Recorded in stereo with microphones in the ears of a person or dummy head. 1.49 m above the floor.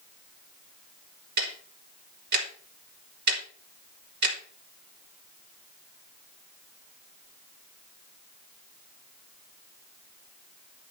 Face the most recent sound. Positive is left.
turn(degrees=-65)  # may be behind; listen again after turning